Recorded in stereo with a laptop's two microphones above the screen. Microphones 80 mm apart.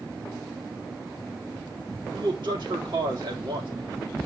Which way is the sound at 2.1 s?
70° right (ahead or behind).